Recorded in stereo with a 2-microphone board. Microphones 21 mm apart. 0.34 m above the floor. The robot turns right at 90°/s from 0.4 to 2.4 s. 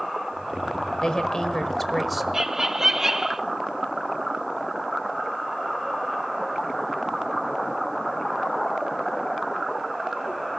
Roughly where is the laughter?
Right.